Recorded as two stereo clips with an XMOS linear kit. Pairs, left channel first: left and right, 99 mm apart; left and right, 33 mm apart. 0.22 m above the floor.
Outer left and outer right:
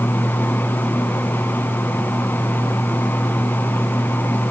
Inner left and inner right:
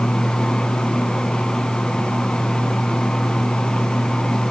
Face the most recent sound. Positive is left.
No sound to turn to.